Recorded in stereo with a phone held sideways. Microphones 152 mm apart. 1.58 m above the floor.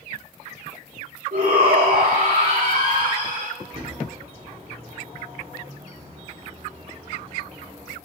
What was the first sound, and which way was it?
A shout, 85° right.